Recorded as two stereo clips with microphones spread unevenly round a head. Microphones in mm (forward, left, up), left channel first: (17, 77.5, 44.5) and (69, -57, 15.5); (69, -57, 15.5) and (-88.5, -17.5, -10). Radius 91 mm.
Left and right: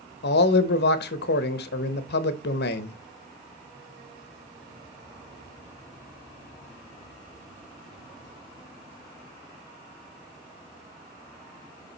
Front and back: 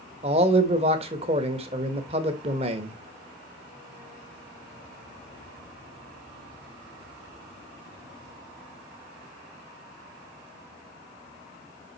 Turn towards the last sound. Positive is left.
turn(degrees=105)